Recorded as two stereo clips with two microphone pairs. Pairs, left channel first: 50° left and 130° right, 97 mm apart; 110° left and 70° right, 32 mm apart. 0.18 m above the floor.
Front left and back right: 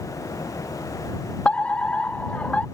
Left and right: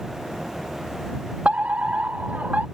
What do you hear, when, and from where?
1.4 s a fire alarm: 30° right